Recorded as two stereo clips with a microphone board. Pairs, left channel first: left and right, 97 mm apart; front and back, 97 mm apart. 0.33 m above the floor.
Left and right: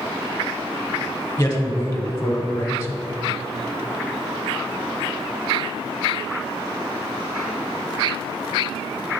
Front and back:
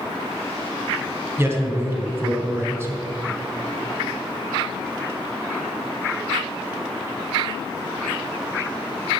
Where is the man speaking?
135° left, 1.4 m.